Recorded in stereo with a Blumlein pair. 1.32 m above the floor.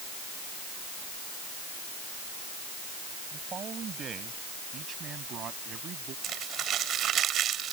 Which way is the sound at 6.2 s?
30° right.